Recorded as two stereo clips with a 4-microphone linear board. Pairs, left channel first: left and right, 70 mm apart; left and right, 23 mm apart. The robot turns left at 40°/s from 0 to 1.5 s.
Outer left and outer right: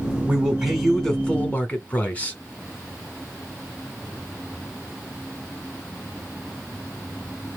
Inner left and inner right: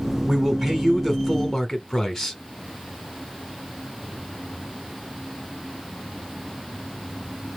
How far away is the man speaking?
About 1.7 m.